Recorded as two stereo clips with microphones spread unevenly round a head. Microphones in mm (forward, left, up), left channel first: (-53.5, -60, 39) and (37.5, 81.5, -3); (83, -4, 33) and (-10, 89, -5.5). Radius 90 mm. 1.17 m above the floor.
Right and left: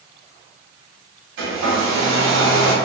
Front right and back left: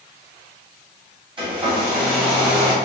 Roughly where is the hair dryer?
Left.